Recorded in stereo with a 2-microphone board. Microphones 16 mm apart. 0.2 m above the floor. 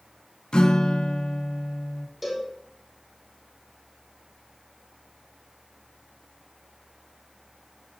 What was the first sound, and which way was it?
A guitar, 65° left (ahead or behind).